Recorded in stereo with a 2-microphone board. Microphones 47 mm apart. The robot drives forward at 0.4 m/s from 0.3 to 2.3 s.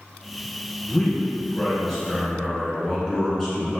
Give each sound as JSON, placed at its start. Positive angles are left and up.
{"t": 0.9, "sound": "a man speaking", "side_deg": 10, "distance_m": 1.5}